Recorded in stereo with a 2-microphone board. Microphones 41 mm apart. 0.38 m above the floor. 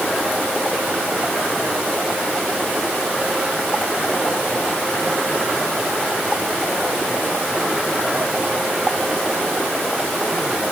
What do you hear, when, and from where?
Only background noise.